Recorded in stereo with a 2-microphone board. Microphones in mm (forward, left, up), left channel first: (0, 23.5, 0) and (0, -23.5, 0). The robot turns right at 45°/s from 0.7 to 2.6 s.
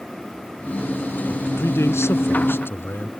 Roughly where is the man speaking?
Left.